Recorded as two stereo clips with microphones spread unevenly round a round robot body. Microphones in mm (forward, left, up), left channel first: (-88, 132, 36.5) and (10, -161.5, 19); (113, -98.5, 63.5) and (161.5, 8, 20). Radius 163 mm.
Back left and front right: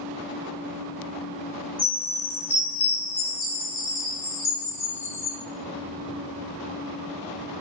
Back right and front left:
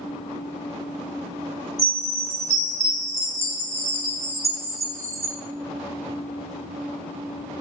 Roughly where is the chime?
Ahead left.